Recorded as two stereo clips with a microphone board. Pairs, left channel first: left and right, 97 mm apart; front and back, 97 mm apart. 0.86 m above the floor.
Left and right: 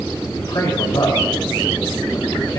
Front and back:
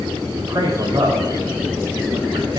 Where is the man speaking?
130° left, 4 m.